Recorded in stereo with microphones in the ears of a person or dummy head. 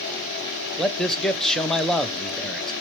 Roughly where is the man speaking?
Centre.